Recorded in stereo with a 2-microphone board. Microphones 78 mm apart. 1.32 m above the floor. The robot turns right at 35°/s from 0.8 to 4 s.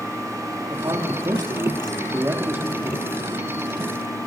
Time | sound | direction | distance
0.7 | a man speaking | 95° right | 2.5 m